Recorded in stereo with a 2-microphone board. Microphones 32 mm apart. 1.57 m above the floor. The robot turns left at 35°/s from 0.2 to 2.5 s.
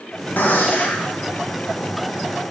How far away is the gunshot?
About 1.7 m.